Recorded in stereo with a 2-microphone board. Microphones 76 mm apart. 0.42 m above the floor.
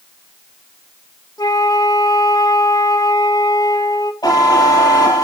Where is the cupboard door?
No cupboard door in this recording.